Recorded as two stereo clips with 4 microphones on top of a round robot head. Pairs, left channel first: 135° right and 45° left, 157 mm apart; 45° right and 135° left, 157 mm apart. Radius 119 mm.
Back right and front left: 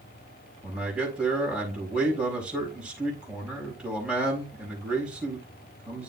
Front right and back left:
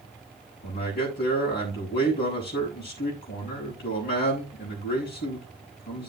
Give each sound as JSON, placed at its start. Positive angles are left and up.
{"t": 0.6, "sound": "a man speaking", "azimuth_deg": -40, "distance_m": 4.5}